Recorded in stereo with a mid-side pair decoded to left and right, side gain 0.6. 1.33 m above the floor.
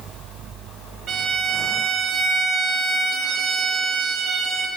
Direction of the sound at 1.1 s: 45° right.